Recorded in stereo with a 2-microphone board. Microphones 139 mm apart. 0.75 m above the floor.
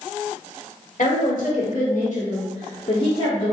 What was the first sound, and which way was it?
A woman speaking, 75° left (ahead or behind).